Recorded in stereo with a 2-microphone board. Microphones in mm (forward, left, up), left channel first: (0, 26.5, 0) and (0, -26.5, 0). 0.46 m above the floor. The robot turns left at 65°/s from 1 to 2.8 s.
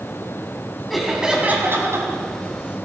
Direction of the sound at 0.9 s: Straight ahead.